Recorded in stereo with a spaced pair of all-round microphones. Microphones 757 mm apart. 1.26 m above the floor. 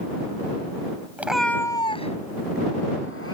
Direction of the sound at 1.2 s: 5° right (ahead or behind).